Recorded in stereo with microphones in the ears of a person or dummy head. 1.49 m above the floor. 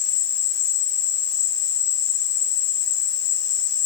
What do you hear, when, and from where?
0.0 s an insect: 85° left, 6.5 m